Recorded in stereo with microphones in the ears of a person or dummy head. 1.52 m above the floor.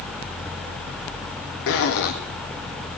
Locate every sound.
1.7 s a zipper: 70° left (ahead or behind), 1.5 m